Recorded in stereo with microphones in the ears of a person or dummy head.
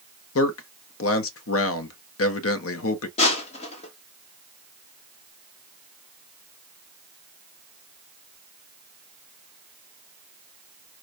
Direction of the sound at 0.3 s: 70° left (ahead or behind).